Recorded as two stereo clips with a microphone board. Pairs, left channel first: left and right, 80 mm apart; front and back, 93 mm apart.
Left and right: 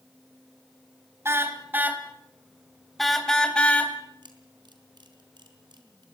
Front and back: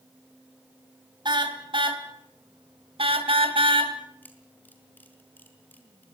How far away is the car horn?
About 3 m.